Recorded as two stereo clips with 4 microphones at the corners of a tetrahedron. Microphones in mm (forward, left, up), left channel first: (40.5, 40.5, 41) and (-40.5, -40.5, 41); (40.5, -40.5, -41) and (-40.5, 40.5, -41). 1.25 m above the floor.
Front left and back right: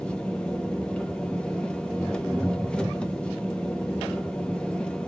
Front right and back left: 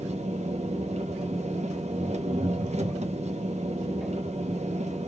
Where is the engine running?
125° left, 0.8 m.